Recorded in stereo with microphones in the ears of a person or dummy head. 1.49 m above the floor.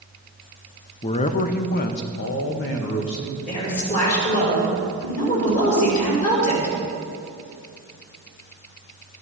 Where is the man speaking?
25° left (ahead or behind), 0.6 m; by 3.4 s 60° left (ahead or behind), 1.6 m.